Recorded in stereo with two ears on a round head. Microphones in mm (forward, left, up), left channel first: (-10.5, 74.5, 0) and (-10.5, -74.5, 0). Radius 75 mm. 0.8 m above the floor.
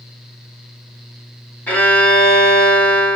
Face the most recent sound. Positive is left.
turn(degrees=10)  # may be behind; listen again after turning